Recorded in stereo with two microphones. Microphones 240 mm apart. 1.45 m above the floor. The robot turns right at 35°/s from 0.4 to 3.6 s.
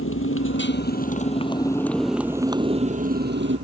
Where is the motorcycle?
120° left; by 3.6 s 125° right.